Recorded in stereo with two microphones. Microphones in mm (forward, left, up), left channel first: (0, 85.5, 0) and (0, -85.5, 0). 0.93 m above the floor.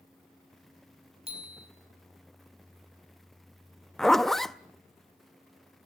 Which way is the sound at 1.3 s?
35° right (ahead or behind).